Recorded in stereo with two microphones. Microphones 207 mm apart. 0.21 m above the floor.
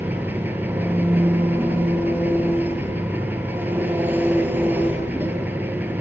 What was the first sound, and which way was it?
An engine running, 10° right (ahead or behind).